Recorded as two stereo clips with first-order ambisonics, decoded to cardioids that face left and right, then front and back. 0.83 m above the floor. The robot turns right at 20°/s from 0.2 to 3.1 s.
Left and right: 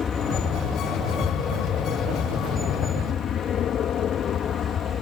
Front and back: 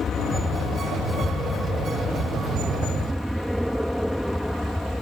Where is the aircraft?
45° left; by 5.0 s 85° left.